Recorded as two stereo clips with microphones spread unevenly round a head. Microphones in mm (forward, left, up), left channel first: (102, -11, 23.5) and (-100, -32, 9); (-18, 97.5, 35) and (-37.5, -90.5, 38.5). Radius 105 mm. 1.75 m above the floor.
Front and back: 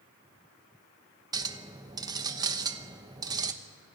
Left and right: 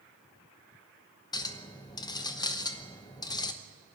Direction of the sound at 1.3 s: 130° left.